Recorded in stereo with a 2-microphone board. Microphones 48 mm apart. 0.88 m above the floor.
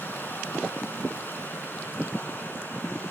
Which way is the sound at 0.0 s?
50° left (ahead or behind).